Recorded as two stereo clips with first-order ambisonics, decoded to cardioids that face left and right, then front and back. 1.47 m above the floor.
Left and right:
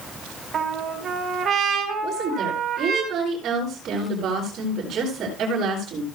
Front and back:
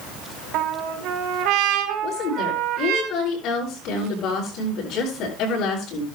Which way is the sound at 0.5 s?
155° right.